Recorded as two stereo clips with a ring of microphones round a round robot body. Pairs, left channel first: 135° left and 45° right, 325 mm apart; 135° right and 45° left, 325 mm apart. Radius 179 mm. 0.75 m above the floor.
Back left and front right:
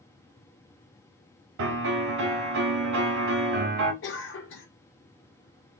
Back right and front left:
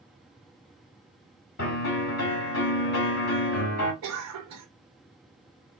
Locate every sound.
1.6 s a piano: 80° right, 2 m
4.0 s a cough: 80° left, 1.0 m